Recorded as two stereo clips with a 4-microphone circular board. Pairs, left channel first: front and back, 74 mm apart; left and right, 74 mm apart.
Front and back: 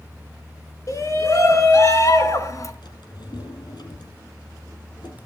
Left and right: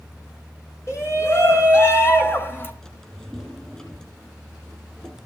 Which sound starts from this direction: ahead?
A drawer, at 2.8 s.